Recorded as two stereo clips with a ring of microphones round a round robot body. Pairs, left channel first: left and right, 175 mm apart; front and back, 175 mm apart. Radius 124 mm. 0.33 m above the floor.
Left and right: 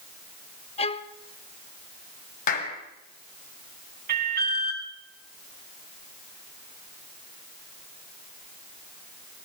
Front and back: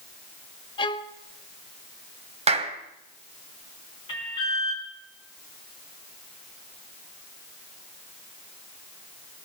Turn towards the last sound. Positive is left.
turn(degrees=-70)